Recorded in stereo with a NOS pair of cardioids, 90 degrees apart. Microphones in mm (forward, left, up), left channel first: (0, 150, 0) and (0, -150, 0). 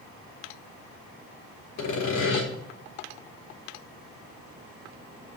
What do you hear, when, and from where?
1.8 s sawing: 70° left, 3 m